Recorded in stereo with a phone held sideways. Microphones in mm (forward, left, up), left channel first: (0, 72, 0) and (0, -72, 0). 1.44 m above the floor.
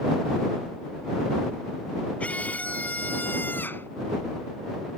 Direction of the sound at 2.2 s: 10° left (ahead or behind).